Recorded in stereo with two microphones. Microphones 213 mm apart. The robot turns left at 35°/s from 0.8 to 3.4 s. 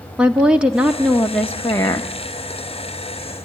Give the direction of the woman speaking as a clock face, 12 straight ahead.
6 o'clock.